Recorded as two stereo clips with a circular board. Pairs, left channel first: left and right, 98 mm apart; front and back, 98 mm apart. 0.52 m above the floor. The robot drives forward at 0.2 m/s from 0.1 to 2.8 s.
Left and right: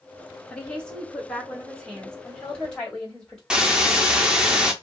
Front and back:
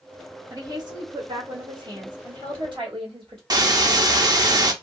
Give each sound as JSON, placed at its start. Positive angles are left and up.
{"t": 0.5, "sound": "a woman speaking", "azimuth_deg": 165, "distance_m": 1.2}
{"t": 3.5, "sound": "a hiss", "azimuth_deg": -170, "distance_m": 0.6}